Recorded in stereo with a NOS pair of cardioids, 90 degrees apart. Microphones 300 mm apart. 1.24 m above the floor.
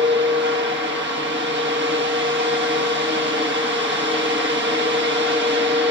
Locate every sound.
0.0 s a fan: 35° right, 1.4 m